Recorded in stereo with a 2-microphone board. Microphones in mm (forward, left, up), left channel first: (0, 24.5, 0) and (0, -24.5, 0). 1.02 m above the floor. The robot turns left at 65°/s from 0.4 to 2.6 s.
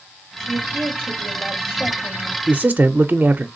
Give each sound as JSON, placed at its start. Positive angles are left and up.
{"t": 0.4, "sound": "a woman speaking", "azimuth_deg": -80, "distance_m": 2.5}
{"t": 2.5, "sound": "a man speaking", "side_deg": -25, "distance_m": 0.5}